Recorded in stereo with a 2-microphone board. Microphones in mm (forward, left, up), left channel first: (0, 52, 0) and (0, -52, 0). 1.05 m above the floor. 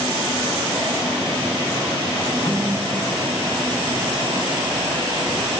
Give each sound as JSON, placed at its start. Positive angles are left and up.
{"t": 2.5, "sound": "a snare drum", "side_deg": 45, "distance_m": 10.0}